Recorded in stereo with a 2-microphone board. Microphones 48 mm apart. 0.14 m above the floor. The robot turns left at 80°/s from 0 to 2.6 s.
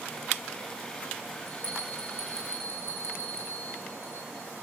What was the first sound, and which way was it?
A bell, 25° left (ahead or behind).